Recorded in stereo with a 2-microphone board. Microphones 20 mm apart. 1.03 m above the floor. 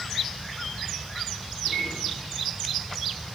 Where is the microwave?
15° right (ahead or behind), 4.5 m.